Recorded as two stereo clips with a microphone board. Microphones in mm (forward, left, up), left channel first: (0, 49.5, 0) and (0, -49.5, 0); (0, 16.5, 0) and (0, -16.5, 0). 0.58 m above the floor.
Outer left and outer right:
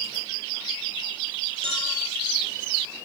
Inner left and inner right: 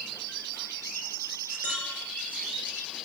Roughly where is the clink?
Right.